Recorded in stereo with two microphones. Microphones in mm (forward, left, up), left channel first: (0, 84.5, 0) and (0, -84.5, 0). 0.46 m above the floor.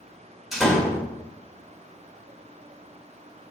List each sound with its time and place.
0.5 s a door slam: centre (ahead or behind), 1.3 m